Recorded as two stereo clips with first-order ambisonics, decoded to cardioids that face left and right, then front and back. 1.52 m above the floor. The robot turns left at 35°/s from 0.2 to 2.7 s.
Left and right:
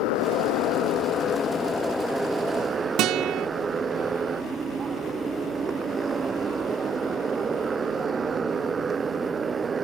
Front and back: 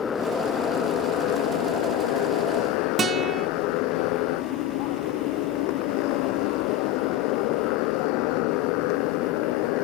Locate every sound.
0.0 s a motorcycle: 70° left; by 9.8 s 20° right
3.0 s a guitar: 115° right